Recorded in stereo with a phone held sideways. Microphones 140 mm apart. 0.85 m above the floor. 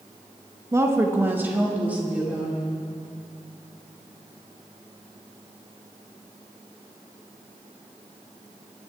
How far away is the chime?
No chime in this recording.